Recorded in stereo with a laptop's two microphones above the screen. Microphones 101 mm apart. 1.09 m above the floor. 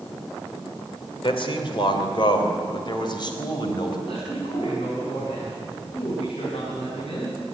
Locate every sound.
1.2 s a man speaking: 60° left (ahead or behind), 3 m; by 4.0 s 45° left (ahead or behind), 5 m
4.1 s a man speaking: 85° left, 7 m